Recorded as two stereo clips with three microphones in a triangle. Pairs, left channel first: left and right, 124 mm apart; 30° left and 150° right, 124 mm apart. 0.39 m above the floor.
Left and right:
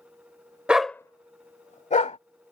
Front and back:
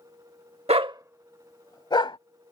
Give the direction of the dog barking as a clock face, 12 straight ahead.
6 o'clock.